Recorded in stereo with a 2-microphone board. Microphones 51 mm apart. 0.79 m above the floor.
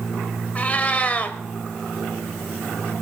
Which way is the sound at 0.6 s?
30° left (ahead or behind).